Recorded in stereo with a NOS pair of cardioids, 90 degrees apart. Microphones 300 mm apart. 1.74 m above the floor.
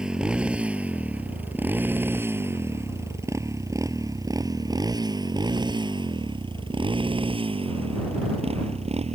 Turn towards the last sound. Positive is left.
turn(degrees=-20)